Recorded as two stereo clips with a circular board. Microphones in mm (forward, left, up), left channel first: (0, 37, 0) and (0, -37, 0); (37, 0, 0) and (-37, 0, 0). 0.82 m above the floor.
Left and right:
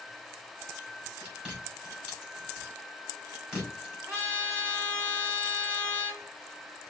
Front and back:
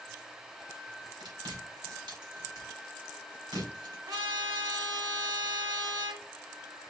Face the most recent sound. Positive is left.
turn(degrees=-160)